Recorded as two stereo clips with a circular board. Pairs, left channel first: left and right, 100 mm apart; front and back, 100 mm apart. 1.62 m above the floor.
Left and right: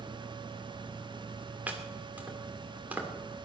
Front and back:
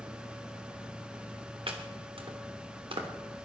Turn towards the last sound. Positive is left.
turn(degrees=-165)